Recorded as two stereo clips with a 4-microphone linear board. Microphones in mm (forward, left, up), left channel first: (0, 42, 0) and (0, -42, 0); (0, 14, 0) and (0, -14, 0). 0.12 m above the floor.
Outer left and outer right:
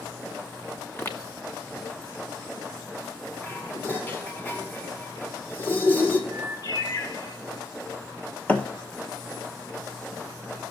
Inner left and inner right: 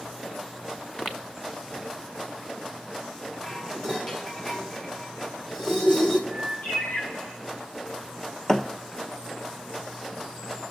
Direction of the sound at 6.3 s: 70° left (ahead or behind).